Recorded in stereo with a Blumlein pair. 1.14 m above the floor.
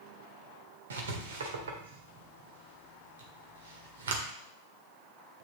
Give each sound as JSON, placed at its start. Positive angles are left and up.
{"t": 0.9, "sound": "writing", "azimuth_deg": -65, "distance_m": 1.7}